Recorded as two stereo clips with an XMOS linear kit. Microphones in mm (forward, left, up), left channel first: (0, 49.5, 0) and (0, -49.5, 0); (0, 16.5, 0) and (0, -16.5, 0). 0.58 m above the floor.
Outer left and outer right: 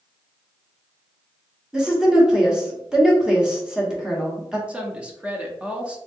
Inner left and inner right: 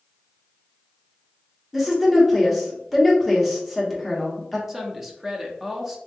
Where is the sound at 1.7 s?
5° right (ahead or behind), 1.0 m.